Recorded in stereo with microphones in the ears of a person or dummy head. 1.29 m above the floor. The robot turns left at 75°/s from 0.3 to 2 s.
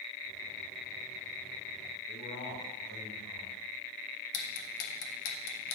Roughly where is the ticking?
Left.